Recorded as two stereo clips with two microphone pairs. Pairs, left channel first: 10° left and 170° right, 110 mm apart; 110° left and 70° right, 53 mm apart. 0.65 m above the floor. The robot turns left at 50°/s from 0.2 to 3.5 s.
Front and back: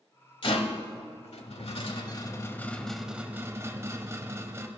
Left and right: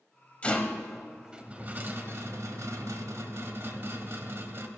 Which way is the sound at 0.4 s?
45° left.